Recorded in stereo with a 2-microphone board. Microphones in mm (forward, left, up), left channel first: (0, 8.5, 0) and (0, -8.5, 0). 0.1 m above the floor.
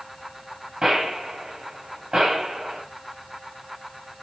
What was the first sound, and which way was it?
A gunshot, 45° right (ahead or behind).